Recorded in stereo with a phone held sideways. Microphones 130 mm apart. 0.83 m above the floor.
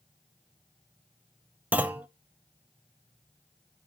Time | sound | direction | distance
1.7 | a clunk | 10° right (ahead or behind) | 0.6 m